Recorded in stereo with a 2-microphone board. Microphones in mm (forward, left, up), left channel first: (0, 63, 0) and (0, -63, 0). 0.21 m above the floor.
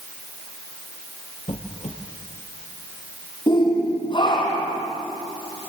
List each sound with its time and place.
1.5 s a squeak: 60° left (ahead or behind), 2.5 m
3.5 s a shout: 35° left (ahead or behind), 6 m